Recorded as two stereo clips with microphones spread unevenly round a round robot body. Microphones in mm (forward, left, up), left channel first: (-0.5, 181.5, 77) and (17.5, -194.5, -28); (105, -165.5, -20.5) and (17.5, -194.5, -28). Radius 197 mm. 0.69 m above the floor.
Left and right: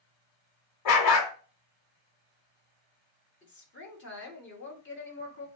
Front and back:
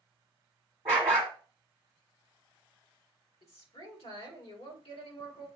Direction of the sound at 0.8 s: 125° left.